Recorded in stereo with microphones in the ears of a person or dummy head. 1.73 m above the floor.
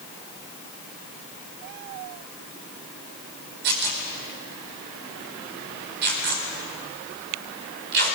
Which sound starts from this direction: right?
Tearing paper, at 3.6 s.